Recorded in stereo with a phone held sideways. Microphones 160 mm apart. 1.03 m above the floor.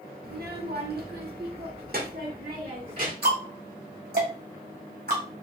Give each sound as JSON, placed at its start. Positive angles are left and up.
{"t": 0.2, "sound": "a child speaking", "side_deg": -70, "distance_m": 0.9}
{"t": 3.2, "sound": "ticking", "side_deg": -75, "distance_m": 1.8}